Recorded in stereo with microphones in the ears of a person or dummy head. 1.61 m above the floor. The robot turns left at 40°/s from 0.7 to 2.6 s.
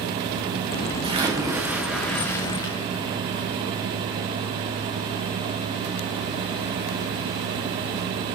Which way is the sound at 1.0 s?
145° right.